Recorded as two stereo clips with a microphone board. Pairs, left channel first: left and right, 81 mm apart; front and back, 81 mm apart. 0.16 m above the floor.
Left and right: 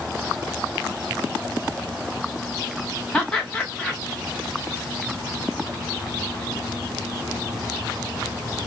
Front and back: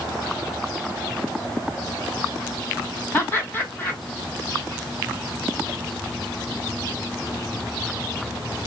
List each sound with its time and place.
3.1 s laughter: 25° left, 1.7 m